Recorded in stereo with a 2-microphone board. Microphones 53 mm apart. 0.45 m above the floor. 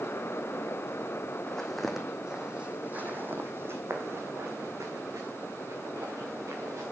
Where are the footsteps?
10° left (ahead or behind), 1.6 m; by 6.8 s 85° right, 3 m.